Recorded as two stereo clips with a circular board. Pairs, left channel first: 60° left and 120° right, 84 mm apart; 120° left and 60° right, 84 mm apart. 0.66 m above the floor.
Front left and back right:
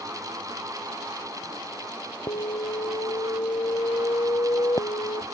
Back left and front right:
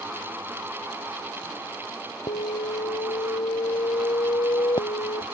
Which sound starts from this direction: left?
An alarm, at 2.3 s.